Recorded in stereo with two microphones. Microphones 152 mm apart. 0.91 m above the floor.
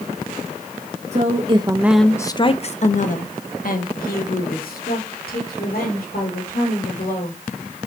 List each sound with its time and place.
1.1 s a woman speaking: 50° right (ahead or behind), 0.8 m; by 7.4 s 75° left (ahead or behind), 4 m